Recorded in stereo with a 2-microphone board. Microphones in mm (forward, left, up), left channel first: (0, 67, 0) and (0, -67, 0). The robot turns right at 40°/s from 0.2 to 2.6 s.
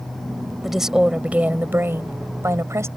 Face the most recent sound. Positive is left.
turn(degrees=-20)  # may be behind; listen again after turning